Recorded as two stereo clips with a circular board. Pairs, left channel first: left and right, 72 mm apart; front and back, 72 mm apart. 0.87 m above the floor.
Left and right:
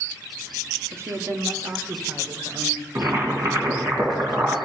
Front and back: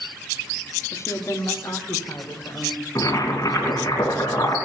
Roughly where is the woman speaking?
Ahead right.